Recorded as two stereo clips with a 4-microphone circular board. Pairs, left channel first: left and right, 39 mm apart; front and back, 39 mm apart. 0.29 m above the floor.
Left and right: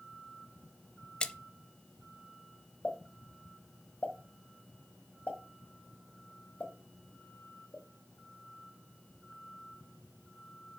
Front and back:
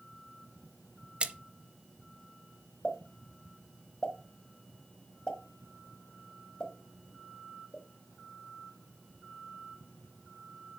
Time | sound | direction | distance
1.2 | a splash | 145° left | 0.5 m
2.8 | a pop | 65° left | 1.4 m